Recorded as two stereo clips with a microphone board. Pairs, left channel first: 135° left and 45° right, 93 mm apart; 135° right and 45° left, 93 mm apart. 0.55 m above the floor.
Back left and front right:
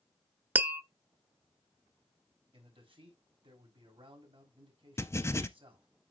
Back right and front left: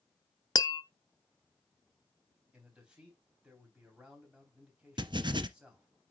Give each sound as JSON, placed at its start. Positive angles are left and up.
{"t": 0.6, "sound": "tapping", "azimuth_deg": -110, "distance_m": 0.6}
{"t": 2.5, "sound": "a man speaking", "azimuth_deg": -35, "distance_m": 4.0}
{"t": 5.0, "sound": "writing", "azimuth_deg": 75, "distance_m": 0.7}